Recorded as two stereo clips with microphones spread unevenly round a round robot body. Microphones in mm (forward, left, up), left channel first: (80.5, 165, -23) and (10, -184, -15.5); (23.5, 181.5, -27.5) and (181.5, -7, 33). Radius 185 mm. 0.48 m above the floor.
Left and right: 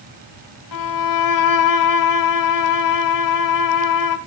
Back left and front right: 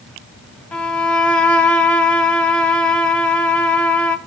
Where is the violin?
45° left, 1.2 m.